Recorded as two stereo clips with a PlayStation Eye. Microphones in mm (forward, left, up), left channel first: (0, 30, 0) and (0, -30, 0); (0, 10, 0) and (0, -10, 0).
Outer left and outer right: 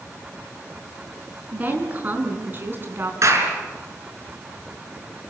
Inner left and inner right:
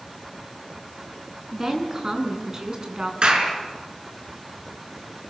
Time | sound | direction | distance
1.5 | a woman speaking | 30° right (ahead or behind) | 5 m
3.2 | a clap | 55° right (ahead or behind) | 5.5 m